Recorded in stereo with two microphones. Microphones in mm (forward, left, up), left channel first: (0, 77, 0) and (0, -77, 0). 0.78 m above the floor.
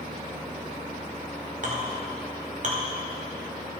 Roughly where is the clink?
Right.